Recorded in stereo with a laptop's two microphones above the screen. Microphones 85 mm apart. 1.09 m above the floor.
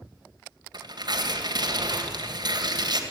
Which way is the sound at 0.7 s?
55° right (ahead or behind).